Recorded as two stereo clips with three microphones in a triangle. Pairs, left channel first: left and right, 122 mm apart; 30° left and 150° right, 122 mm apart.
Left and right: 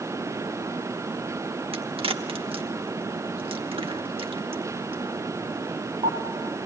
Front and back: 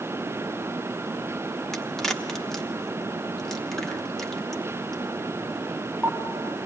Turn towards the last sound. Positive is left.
turn(degrees=-55)